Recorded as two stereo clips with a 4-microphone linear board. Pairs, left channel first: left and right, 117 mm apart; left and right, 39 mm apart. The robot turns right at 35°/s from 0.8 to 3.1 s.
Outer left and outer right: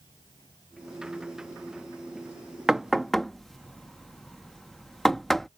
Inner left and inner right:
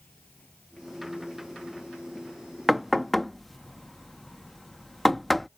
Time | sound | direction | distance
0.0 | an insect | 40° left | ?
2.7 | knocking | 5° right (ahead or behind) | ?